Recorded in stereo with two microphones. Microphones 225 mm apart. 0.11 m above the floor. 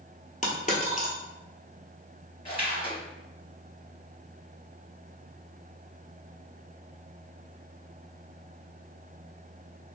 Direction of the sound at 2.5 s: 25° left (ahead or behind).